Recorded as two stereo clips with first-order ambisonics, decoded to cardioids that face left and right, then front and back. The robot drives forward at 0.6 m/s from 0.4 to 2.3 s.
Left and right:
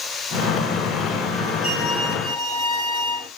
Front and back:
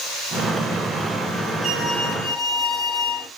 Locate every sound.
1.6 s a violin: 75° left, 3.5 m; by 3.3 s 80° left, 3.5 m